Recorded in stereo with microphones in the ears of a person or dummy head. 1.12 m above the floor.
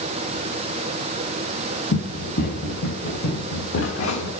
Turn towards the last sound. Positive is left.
turn(degrees=70)  # may be behind; listen again after turning